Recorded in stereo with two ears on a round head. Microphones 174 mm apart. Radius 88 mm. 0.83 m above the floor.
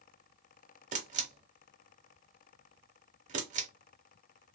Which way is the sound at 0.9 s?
40° right (ahead or behind).